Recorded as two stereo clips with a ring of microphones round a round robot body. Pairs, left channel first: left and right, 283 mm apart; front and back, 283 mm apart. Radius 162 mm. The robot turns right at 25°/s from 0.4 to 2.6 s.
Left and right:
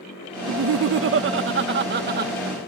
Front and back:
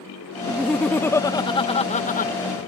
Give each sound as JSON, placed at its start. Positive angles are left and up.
{"t": 0.5, "sound": "laughter", "azimuth_deg": -95}